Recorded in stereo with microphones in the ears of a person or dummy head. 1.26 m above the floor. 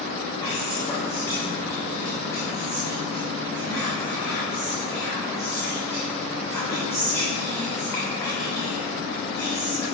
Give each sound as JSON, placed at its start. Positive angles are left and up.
{"t": 0.4, "sound": "whispering", "side_deg": 15, "distance_m": 3.5}